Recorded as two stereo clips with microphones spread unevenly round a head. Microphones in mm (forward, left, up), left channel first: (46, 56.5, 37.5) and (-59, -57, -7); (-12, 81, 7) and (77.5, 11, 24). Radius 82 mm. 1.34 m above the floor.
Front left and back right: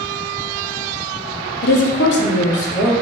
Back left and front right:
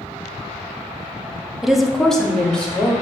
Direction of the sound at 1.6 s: 55° left.